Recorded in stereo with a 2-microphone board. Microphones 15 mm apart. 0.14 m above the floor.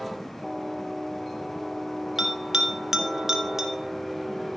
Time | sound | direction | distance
2.2 | a bell | 40° right (ahead or behind) | 1.5 m